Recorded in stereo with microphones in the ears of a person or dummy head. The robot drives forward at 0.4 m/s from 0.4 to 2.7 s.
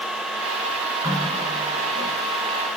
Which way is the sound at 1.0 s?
20° right (ahead or behind).